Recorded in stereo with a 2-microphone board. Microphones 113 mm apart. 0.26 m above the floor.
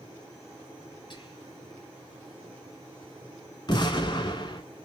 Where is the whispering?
45° left (ahead or behind), 1.4 m.